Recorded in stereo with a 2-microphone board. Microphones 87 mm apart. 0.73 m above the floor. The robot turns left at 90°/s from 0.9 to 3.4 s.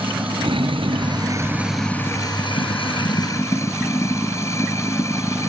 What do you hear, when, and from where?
0.0 s running water: 100° right; by 5.5 s 35° left